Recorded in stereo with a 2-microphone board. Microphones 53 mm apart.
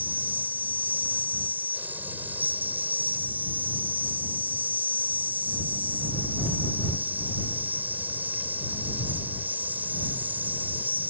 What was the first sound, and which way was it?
An insect, 35° right (ahead or behind).